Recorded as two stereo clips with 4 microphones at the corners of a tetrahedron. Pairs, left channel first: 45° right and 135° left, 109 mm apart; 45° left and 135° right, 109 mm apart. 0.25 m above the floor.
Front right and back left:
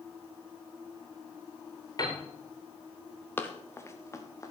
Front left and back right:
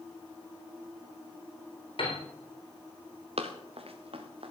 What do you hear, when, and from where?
2.0 s a piano: 10° left, 4.5 m
3.4 s running footsteps: 115° right, 2 m; by 4.5 s 105° right, 3 m